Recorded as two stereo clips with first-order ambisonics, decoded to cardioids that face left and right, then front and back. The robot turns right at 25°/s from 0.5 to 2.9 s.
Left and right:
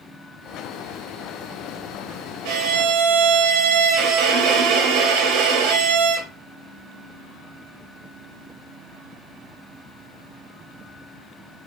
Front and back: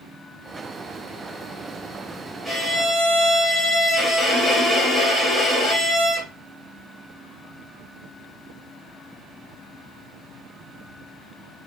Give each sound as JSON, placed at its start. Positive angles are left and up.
{"t": 2.5, "sound": "a violin", "azimuth_deg": -105, "distance_m": 0.9}